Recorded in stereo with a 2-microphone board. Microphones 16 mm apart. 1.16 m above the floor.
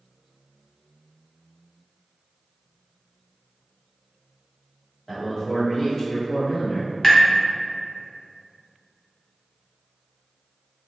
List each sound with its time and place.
5.1 s a man speaking: 25° left (ahead or behind), 1.5 m; by 6.9 s 60° left (ahead or behind), 1.4 m
7.0 s tapping: 35° left (ahead or behind), 0.7 m